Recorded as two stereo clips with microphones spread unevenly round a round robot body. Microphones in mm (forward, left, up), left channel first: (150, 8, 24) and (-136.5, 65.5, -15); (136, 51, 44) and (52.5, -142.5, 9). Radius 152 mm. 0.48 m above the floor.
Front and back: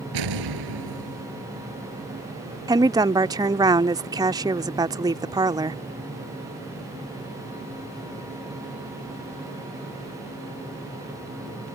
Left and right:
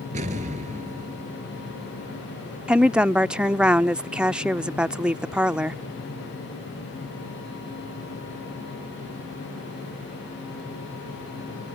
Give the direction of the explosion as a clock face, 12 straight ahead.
6 o'clock.